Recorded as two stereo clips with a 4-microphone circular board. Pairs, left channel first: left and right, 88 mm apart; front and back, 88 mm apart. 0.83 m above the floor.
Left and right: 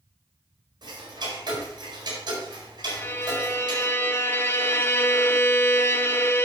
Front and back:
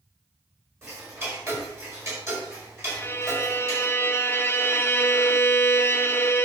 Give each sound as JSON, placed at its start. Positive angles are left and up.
{"t": 0.8, "sound": "ticking", "azimuth_deg": -125, "distance_m": 4.5}
{"t": 2.9, "sound": "a violin", "azimuth_deg": 45, "distance_m": 0.6}